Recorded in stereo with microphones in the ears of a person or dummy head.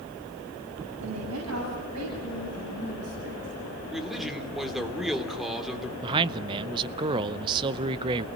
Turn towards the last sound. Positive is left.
turn(degrees=-25)  # may be behind; listen again after turning